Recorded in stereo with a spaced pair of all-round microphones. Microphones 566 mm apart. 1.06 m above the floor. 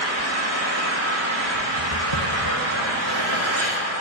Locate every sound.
0.0 s an engine running: 50° right (ahead or behind), 1.6 m
1.8 s footsteps: 60° left (ahead or behind), 2 m; by 3.8 s 45° left (ahead or behind), 2 m